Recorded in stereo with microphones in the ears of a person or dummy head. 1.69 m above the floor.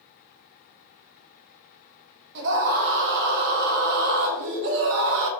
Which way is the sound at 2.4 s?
60° right (ahead or behind).